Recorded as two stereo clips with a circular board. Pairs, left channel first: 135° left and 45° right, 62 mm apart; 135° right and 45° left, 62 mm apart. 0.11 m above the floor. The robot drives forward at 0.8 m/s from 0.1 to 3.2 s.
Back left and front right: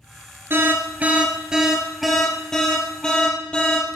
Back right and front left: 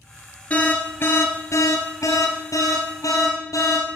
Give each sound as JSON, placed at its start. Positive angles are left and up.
{"t": 0.5, "sound": "an alarm", "azimuth_deg": -80, "distance_m": 1.4}